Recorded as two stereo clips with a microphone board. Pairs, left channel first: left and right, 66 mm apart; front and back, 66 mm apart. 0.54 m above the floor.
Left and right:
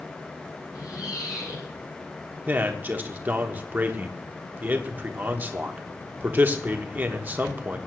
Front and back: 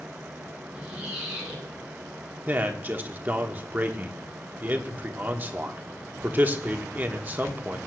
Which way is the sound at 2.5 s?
135° right.